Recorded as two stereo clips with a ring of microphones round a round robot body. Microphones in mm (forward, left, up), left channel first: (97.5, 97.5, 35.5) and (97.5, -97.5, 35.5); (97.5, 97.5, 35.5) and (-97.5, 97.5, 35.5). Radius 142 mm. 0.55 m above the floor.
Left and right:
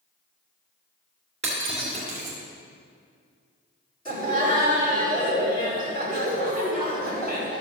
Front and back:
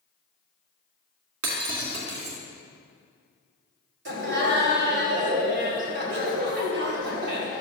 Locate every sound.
1.4 s breaking glass: 160° right, 2.5 m
4.0 s laughter: 160° left, 3.5 m